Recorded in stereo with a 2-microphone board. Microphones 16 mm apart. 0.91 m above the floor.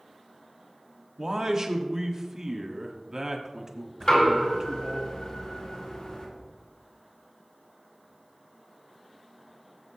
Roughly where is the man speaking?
Right.